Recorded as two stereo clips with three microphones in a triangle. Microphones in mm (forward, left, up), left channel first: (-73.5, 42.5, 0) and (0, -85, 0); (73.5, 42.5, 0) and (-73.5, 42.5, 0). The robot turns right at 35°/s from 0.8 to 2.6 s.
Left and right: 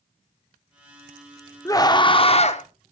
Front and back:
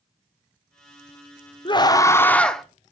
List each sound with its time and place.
1.6 s a scream: 55° left, 0.8 m; by 2.6 s 90° left, 0.8 m